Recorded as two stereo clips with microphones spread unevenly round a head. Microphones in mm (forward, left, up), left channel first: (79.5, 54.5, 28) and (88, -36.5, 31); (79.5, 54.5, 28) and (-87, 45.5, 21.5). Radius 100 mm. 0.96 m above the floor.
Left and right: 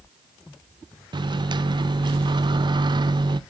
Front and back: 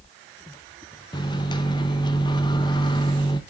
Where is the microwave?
60° right, 0.6 m.